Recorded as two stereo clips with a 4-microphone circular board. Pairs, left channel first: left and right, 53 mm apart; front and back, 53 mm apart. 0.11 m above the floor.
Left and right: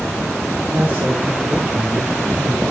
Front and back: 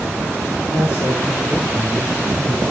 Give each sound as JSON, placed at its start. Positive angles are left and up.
{"t": 0.7, "sound": "a man speaking", "azimuth_deg": -20, "distance_m": 6.5}